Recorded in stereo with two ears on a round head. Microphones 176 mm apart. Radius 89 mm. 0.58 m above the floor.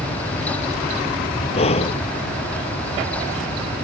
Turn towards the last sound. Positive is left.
turn(degrees=35)  # may be behind; listen again after turning